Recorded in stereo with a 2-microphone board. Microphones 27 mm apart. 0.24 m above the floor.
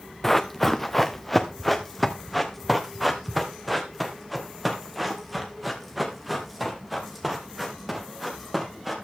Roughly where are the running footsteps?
Centre.